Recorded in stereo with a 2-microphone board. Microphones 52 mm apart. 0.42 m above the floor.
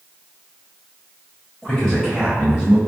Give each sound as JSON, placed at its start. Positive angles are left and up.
{"t": 1.6, "sound": "a man speaking", "side_deg": 10, "distance_m": 1.9}